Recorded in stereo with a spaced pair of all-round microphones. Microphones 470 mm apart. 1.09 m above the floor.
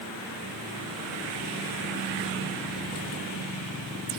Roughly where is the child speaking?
No child speaking in this recording.